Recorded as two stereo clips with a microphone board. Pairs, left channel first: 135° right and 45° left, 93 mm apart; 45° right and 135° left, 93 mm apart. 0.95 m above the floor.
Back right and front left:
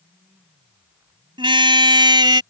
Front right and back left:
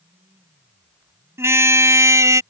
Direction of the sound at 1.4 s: 70° left.